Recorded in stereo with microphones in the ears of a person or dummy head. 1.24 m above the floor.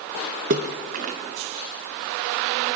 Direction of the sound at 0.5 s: 35° right (ahead or behind).